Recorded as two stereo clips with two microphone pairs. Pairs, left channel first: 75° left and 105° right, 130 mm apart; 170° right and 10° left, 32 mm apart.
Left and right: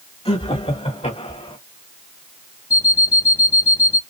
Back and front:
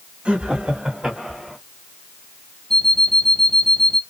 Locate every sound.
0.2 s laughter: 55° left, 2.5 m; by 1.6 s 90° left, 2.5 m
2.7 s an alarm clock: 115° left, 0.7 m